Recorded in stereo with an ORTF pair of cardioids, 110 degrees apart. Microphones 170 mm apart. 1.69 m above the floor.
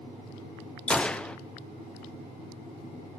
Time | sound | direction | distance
0.9 | a gunshot | 5° left | 0.5 m